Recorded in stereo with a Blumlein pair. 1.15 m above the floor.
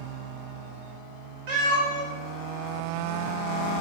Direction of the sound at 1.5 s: 50° right.